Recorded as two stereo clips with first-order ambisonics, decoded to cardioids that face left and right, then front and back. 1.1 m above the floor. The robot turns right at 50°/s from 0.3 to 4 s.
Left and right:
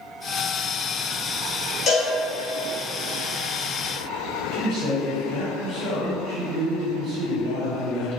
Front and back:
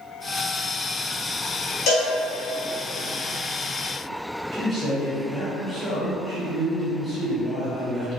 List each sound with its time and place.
1.9 s a cowbell: 35° left, 0.7 m; by 2.1 s 45° left, 0.7 m
4.5 s a man speaking: 100° right, 1.3 m